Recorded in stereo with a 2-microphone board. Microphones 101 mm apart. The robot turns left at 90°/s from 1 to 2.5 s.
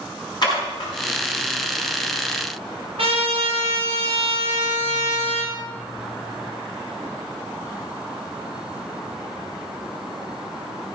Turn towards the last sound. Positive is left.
turn(degrees=-80)